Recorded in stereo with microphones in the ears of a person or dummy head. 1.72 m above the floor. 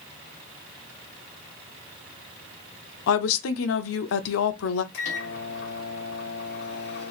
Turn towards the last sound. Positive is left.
turn(degrees=55)  # may be behind; listen again after turning